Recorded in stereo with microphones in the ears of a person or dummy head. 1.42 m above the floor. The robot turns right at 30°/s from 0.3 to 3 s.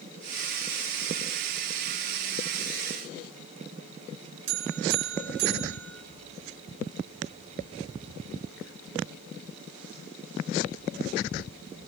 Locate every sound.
4.5 s a buzzer: 60° right (ahead or behind), 8 m